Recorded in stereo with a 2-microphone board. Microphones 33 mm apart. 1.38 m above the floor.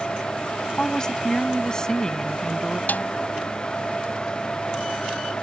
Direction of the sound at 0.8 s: 20° left (ahead or behind).